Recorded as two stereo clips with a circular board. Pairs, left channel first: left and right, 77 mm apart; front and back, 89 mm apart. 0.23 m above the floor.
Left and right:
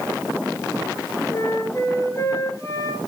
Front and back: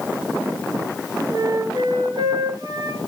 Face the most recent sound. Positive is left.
turn(degrees=140)